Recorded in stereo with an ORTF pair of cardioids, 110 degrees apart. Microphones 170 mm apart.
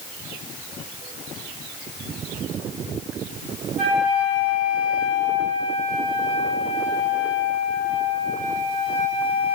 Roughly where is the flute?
Ahead right.